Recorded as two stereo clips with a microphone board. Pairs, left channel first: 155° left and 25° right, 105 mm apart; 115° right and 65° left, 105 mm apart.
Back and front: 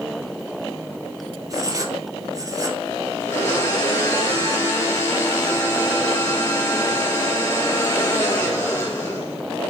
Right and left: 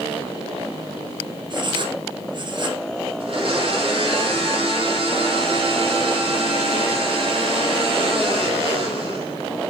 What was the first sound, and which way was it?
Writing, 30° left.